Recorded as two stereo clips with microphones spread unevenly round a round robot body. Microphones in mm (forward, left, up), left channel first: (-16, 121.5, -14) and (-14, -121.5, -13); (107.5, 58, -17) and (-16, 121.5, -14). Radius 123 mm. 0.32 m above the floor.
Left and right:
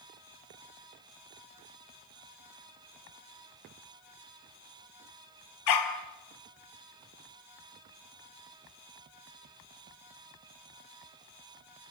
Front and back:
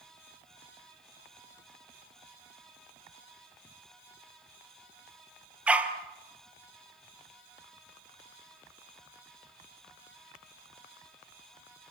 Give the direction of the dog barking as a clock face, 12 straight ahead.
10 o'clock.